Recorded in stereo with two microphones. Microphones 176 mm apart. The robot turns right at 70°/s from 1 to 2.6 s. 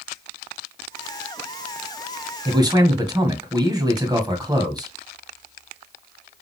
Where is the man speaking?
30° right (ahead or behind), 1.7 m; by 4.9 s 20° right (ahead or behind), 1.7 m.